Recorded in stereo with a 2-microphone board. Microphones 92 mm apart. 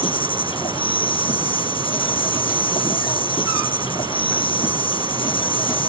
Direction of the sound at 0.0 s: 70° left (ahead or behind).